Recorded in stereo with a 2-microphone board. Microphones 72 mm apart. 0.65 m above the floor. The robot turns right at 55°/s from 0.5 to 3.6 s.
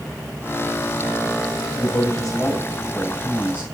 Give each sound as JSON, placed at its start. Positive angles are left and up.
{"t": 1.8, "sound": "a man speaking", "azimuth_deg": 115, "distance_m": 3.5}